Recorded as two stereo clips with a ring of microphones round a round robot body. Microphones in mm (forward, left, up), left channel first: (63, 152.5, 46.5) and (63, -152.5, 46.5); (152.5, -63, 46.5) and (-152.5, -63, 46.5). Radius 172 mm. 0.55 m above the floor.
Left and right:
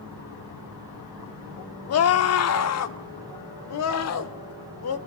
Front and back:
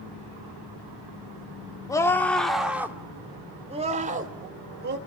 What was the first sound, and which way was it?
A scream, 75° left.